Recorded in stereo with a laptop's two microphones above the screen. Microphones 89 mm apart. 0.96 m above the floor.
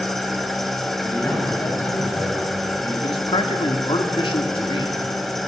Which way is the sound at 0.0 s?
Centre (ahead or behind).